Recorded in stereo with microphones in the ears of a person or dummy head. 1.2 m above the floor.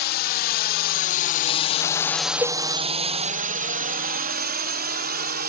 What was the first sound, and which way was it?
A drone, 50° left (ahead or behind).